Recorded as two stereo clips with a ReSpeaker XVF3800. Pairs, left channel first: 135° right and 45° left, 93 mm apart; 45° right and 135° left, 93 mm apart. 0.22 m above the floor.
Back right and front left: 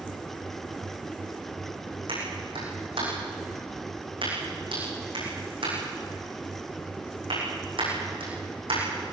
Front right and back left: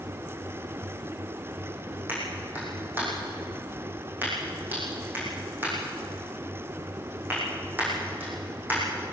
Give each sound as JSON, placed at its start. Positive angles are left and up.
{"t": 2.1, "sound": "a clap", "azimuth_deg": 65, "distance_m": 9.0}